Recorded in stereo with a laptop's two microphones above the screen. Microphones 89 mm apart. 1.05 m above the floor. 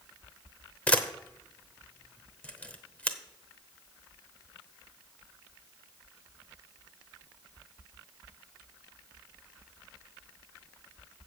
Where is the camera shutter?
15° left (ahead or behind), 0.9 m.